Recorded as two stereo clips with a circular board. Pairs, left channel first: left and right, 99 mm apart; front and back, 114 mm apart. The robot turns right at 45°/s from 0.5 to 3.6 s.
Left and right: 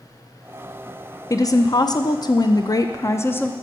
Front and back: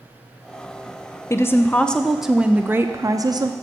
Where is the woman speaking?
55° left, 0.5 m; by 3.5 s 155° left, 0.5 m.